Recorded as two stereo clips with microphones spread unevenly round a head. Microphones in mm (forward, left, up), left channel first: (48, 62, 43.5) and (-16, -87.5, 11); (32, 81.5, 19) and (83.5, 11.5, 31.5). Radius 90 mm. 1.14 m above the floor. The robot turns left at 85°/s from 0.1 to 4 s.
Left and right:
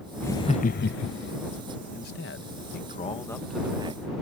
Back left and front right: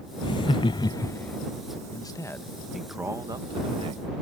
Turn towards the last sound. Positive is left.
turn(degrees=-70)